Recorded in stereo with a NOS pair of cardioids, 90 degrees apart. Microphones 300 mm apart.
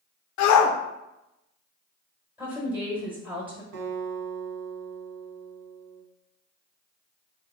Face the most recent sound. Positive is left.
turn(degrees=-65)